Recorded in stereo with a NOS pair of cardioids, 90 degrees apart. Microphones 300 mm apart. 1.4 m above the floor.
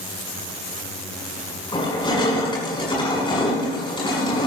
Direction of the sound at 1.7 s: 15° left.